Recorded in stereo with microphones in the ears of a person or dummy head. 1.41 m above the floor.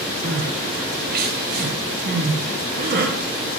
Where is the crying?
45° right (ahead or behind), 0.6 m.